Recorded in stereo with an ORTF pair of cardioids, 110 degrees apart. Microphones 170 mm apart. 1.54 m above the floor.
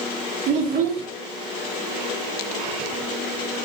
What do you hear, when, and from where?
0.5 s a child speaking: 65° right, 1.5 m